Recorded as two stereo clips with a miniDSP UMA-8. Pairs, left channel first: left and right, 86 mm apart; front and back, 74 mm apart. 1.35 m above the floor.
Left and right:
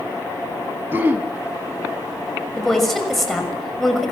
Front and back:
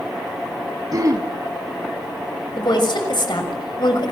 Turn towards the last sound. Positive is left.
turn(degrees=0)